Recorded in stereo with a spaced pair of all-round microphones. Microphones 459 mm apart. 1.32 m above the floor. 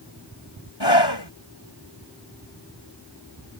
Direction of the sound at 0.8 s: 60° left (ahead or behind).